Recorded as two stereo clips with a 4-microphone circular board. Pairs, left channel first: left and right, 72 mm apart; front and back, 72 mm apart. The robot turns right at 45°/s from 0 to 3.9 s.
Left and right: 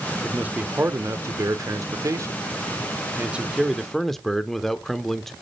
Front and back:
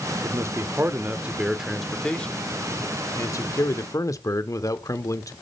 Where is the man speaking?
160° right, 1.1 m; by 5.3 s 5° left, 1.1 m.